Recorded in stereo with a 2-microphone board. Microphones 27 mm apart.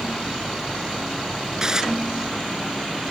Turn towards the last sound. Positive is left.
turn(degrees=-25)  # may be behind; listen again after turning